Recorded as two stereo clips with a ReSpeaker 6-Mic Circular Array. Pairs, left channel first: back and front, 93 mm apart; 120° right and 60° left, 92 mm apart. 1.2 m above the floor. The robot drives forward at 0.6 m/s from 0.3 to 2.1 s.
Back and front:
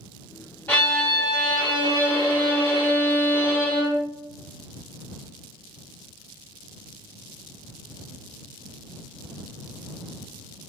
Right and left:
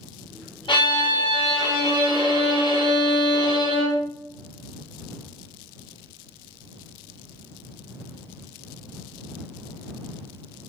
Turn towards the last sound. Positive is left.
turn(degrees=-145)